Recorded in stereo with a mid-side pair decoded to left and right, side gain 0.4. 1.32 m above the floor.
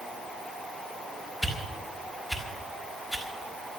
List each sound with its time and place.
1.4 s a whoosh: 10° left, 4.5 m